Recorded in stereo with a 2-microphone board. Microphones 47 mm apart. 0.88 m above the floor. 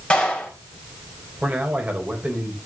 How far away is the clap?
About 5.5 m.